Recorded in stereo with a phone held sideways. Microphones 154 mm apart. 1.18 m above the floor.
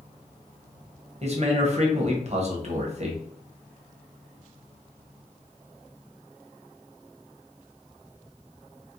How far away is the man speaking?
About 0.9 m.